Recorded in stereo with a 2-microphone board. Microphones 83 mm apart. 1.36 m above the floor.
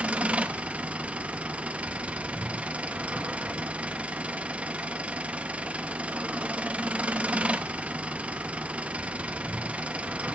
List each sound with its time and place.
0.0 s an engine running: 15° right (ahead or behind), 0.7 m